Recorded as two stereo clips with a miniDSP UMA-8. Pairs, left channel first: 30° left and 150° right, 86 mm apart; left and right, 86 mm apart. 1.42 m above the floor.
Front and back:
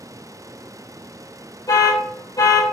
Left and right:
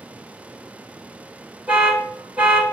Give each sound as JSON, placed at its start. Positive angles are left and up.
{"t": 1.7, "sound": "an alarm", "azimuth_deg": -10, "distance_m": 1.3}